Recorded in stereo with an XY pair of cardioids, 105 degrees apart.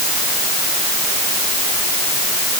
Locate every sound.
Only background noise.